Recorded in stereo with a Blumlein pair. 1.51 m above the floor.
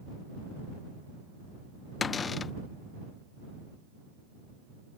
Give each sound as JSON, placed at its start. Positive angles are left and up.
{"t": 2.0, "sound": "a cupboard door", "azimuth_deg": 20}